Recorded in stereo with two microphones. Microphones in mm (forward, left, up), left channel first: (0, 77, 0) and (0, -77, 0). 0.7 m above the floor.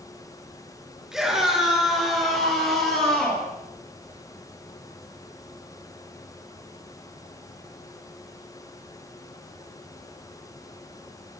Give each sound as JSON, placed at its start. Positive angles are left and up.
{"t": 1.1, "sound": "a scream", "side_deg": -5, "distance_m": 8.5}